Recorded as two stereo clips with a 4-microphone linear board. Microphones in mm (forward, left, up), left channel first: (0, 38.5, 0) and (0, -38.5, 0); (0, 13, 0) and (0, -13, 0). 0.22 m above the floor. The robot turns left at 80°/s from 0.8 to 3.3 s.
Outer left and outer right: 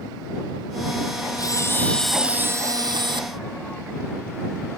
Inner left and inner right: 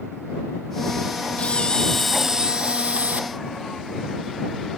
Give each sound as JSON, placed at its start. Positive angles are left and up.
{"t": 1.4, "sound": "a camera shutter", "azimuth_deg": 55}